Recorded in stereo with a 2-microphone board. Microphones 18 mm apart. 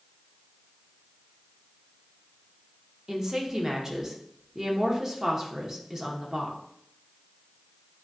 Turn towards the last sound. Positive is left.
turn(degrees=-25)  # may be behind; listen again after turning